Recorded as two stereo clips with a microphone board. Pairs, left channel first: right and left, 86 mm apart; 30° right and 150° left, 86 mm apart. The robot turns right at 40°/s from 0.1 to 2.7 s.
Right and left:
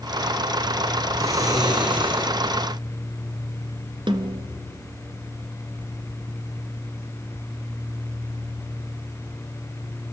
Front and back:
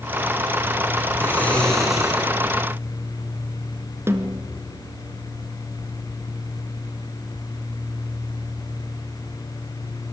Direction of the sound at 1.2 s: 35° left.